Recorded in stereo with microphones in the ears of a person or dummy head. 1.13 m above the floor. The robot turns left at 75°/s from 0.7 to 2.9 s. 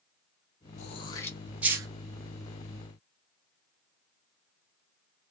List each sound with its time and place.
0.8 s throat clearing: 35° left (ahead or behind), 0.6 m; by 1.9 s 25° right (ahead or behind), 0.6 m